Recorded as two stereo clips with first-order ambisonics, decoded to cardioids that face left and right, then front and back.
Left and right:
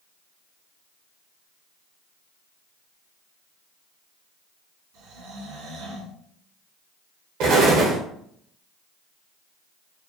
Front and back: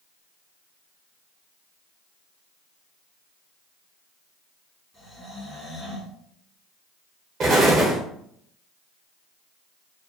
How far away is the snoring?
About 2.5 m.